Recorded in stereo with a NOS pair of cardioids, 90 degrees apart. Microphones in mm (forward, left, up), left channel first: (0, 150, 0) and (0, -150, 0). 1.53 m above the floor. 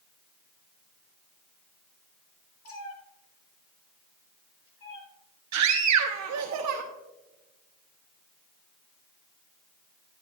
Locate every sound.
2.6 s a cat meowing: 50° left, 2.5 m
5.5 s a scream: 70° right, 0.9 m